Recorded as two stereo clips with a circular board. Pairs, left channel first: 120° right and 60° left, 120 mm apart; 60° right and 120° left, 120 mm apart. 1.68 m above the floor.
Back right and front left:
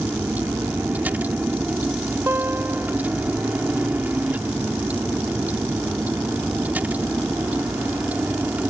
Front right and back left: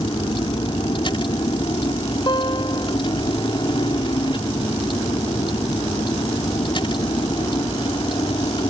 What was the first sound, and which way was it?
A vehicle, 15° right.